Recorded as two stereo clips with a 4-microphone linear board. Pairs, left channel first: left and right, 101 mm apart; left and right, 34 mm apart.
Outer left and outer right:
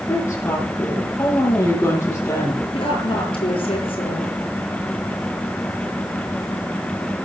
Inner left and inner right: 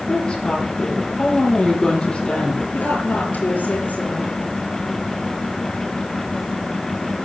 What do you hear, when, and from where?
0.1 s a woman speaking: 25° left (ahead or behind), 9 m
2.7 s a woman speaking: 60° left (ahead or behind), 6.5 m